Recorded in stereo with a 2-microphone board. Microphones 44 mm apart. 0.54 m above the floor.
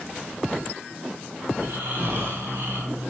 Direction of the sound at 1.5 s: 55° right (ahead or behind).